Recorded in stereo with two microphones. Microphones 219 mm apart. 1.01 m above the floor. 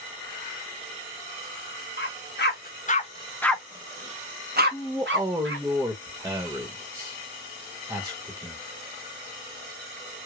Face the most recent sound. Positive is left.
turn(degrees=-10)  # may be behind; listen again after turning